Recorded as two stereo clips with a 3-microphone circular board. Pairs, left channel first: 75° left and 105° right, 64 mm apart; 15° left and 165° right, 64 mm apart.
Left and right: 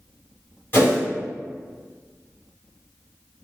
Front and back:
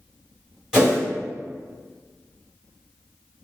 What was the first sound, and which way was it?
A whoosh, 120° left.